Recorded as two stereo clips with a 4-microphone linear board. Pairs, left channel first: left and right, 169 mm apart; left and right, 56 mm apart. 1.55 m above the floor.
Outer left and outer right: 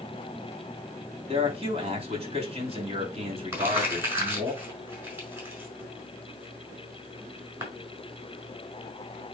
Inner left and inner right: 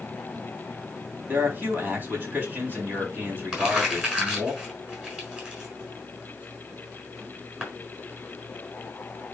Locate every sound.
1.3 s a man speaking: 35° right (ahead or behind), 3.5 m
3.5 s crumpling: 15° right (ahead or behind), 5.5 m